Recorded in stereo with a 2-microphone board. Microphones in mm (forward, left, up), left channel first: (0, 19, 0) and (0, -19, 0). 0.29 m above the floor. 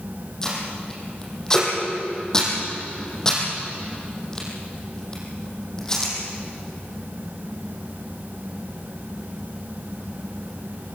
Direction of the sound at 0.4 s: 15° left (ahead or behind).